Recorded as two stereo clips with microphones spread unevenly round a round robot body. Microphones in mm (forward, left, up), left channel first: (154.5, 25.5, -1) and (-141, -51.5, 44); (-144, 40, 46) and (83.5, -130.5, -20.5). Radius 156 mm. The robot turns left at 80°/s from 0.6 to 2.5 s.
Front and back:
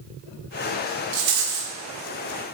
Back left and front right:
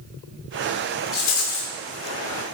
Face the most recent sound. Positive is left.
turn(degrees=100)